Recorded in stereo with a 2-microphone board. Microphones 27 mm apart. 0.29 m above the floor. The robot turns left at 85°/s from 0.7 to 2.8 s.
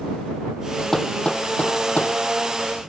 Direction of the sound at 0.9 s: 5° left (ahead or behind).